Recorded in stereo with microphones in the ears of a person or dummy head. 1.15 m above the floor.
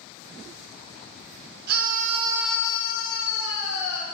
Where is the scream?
60° right (ahead or behind), 0.9 m; by 4.0 s 75° left (ahead or behind), 1.5 m.